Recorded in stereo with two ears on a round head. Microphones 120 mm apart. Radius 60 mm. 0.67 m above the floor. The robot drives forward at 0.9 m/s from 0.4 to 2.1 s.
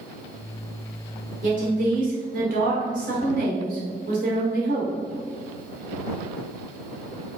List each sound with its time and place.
1.4 s a woman speaking: 60° right (ahead or behind), 2 m; by 5.0 s 70° right (ahead or behind), 2 m